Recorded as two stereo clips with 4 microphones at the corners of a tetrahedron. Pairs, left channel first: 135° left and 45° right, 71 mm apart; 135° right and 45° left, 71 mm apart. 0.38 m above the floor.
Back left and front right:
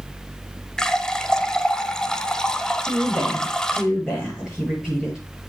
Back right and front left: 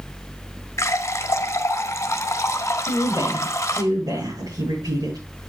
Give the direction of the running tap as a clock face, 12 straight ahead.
5 o'clock.